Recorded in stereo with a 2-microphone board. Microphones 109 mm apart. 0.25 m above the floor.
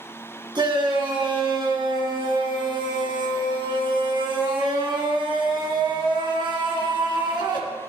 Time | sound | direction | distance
0.6 | a shout | 45° right (ahead or behind) | 3.5 m